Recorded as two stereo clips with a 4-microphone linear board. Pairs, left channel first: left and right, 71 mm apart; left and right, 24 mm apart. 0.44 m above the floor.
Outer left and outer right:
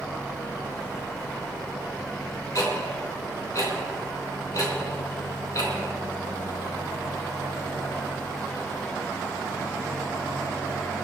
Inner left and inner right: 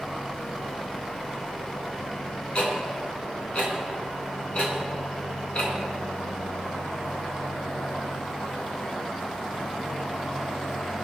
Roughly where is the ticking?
Left.